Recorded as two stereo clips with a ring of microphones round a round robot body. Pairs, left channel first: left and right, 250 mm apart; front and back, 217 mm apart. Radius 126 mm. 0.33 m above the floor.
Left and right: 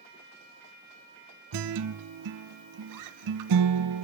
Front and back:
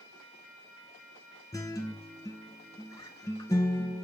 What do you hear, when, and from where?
1.5 s a guitar: 75° right, 0.5 m